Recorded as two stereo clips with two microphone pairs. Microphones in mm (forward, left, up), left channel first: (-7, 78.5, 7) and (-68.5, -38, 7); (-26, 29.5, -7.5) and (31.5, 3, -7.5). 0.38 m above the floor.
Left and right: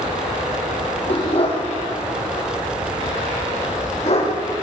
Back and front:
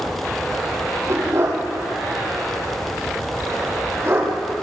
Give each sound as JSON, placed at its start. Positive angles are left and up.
{"t": 1.1, "sound": "a dog barking", "azimuth_deg": 15, "distance_m": 3.5}